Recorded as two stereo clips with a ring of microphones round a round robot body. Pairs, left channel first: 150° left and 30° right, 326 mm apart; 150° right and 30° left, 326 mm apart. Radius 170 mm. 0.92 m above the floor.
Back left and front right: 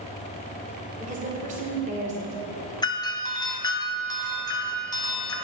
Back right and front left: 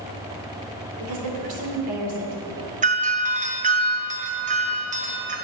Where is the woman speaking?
40° left, 3 m.